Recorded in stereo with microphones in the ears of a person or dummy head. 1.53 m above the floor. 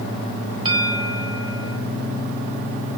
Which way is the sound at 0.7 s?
30° right (ahead or behind).